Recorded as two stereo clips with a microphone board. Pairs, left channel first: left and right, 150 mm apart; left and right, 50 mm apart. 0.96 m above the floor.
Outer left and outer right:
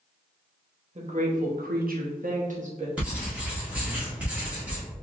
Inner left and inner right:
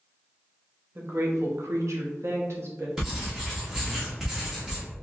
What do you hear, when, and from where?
0.9 s a woman speaking: 50° right (ahead or behind), 1.0 m
3.0 s writing: 10° right (ahead or behind), 1.5 m